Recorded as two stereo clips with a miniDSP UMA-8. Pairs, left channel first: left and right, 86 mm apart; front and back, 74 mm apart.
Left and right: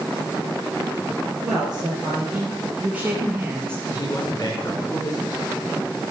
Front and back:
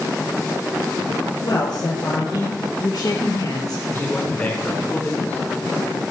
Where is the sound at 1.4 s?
5° right, 3.5 m; by 3.8 s 30° right, 2.5 m.